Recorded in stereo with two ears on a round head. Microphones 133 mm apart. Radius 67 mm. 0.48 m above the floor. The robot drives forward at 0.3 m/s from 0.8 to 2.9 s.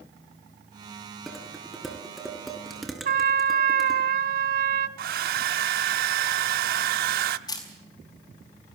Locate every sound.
1.3 s dishes clattering: centre (ahead or behind), 4 m
3.0 s a trumpet: 60° right (ahead or behind), 1.3 m
5.0 s a hair dryer: 70° right (ahead or behind), 1.0 m
7.5 s a camera shutter: 25° left (ahead or behind), 5 m